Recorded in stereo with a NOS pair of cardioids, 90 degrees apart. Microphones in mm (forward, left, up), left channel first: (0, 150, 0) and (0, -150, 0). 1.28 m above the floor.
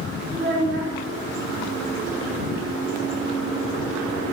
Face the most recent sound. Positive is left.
turn(degrees=-40)